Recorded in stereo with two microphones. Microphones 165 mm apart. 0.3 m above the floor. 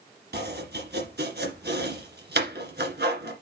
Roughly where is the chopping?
Right.